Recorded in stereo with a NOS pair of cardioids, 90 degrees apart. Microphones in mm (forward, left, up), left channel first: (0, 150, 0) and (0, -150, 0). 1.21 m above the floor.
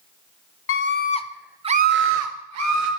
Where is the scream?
45° left, 0.8 m; by 2.9 s 65° right, 1.2 m.